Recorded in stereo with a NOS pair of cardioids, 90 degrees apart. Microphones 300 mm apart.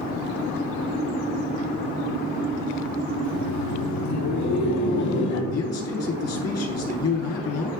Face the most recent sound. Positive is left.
turn(degrees=60)